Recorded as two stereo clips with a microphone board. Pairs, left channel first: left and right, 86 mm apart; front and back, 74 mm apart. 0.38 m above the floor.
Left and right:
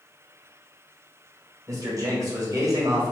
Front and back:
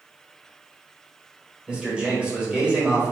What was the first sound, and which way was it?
A man speaking, 110° right.